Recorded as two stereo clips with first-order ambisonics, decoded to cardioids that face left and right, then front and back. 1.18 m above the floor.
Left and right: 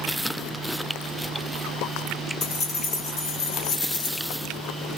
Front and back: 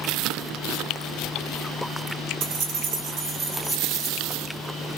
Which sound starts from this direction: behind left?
Keys jangling, at 2.4 s.